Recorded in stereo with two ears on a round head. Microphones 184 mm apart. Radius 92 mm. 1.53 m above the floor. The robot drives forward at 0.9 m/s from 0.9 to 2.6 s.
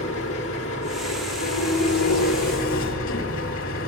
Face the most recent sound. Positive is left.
turn(degrees=80)